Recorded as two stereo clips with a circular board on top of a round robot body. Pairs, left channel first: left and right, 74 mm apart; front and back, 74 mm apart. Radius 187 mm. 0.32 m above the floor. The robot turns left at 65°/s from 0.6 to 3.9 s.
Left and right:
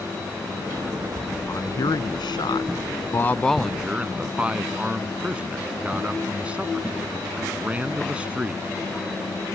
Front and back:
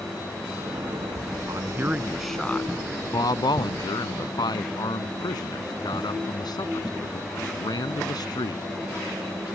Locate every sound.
1.5 s a man speaking: 140° left; by 8.6 s 15° right